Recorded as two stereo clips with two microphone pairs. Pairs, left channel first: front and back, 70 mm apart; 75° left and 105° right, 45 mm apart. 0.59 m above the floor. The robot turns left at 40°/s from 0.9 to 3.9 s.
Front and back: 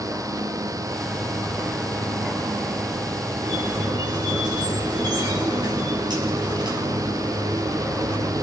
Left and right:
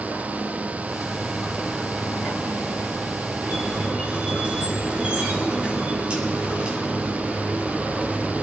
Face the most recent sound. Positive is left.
turn(degrees=-170)